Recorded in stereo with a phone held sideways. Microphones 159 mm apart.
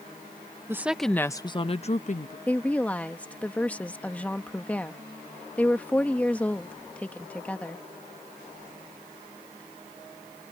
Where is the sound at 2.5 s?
10° left (ahead or behind).